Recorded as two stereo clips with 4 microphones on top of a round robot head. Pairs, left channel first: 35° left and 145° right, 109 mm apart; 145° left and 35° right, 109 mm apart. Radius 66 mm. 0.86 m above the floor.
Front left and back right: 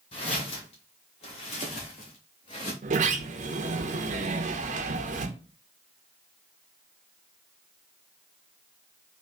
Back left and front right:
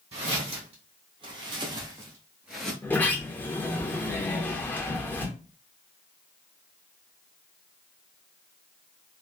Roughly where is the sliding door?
Behind right.